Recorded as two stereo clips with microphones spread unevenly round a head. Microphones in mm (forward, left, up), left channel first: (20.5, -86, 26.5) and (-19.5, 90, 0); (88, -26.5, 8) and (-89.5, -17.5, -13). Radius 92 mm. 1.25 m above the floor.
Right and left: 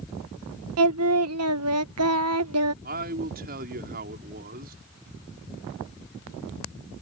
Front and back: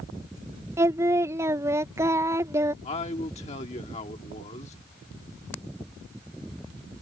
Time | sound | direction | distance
0.8 | singing | 100° left | ?
2.8 | a man speaking | 55° left | ?